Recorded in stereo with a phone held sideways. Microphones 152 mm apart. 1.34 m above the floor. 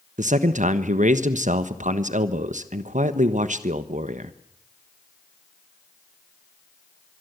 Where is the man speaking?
55° right (ahead or behind), 1.2 m.